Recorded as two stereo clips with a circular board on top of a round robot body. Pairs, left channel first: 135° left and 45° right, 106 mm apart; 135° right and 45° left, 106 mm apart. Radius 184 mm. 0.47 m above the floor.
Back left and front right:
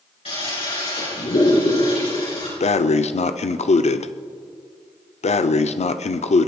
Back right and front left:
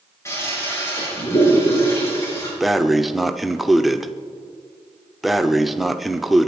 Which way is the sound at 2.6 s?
135° left.